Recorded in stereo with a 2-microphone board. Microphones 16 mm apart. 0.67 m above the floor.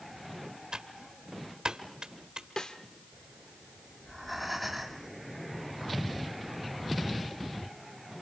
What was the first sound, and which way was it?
Typing on a keyboard, 80° right.